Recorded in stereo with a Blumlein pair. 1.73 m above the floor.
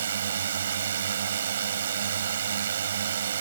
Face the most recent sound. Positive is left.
turn(degrees=-65)